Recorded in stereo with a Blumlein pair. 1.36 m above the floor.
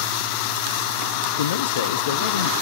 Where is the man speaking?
60° left, 0.9 m.